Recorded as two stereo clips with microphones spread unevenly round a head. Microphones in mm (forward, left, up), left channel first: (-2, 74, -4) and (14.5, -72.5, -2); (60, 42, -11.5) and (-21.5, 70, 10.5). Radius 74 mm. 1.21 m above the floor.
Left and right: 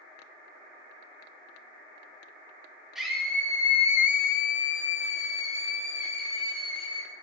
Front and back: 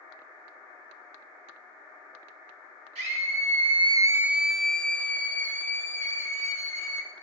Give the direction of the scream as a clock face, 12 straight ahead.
6 o'clock.